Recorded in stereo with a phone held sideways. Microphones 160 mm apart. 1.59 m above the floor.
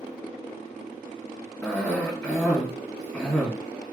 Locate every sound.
1.6 s a cough: 10° left (ahead or behind), 1.9 m